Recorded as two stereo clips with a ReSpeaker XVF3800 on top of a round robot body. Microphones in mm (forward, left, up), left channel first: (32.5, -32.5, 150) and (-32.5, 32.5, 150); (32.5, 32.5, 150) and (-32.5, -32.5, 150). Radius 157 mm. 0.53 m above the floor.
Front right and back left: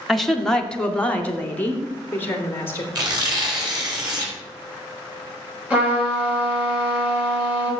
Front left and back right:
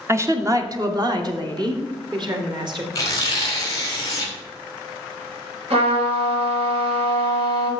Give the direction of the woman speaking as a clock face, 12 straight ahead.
4 o'clock.